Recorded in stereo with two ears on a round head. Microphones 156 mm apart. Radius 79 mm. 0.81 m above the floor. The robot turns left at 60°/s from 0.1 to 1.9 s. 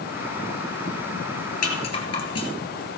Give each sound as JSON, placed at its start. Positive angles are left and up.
{"t": 1.6, "sound": "a rattle", "side_deg": 45, "distance_m": 2.0}